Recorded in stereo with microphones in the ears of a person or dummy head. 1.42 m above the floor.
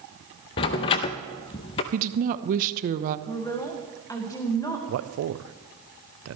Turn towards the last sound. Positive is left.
turn(degrees=-70)  # may be behind; listen again after turning